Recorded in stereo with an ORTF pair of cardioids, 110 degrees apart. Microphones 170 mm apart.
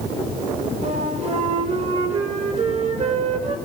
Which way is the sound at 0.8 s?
40° right.